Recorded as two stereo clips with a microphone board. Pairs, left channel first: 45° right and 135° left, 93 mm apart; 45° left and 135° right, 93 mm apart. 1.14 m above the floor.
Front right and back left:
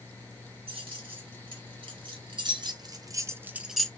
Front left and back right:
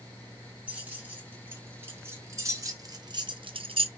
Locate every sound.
0.7 s keys jangling: 150° left, 1.9 m; by 3.9 s 130° right, 0.5 m